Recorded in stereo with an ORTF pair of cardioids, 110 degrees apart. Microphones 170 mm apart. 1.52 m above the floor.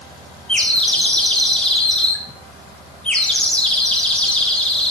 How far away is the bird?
About 0.5 m.